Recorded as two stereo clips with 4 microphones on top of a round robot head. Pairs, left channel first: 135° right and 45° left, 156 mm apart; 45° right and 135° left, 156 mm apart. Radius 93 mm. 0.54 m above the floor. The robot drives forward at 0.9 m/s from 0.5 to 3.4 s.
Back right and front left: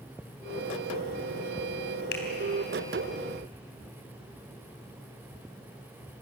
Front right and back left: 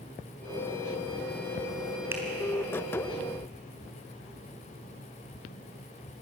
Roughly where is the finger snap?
Behind right.